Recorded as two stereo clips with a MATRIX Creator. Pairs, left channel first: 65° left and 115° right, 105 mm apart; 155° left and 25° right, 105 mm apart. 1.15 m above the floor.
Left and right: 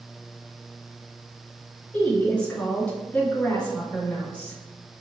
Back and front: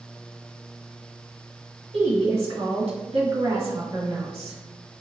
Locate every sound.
1.9 s a woman speaking: 10° right, 1.6 m